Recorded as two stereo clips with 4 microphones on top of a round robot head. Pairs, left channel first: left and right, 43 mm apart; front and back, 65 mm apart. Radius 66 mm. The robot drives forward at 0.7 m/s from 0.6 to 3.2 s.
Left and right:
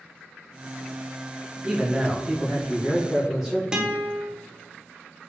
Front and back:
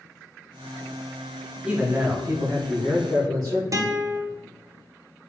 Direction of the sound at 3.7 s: 160° right.